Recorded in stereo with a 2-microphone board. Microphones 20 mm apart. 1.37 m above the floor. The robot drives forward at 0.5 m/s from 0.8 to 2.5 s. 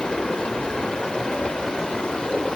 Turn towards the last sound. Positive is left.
turn(degrees=65)  # may be behind; listen again after turning